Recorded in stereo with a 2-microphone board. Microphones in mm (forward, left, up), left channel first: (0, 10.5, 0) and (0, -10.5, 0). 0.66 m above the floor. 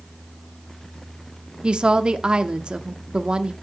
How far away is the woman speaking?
About 0.9 m.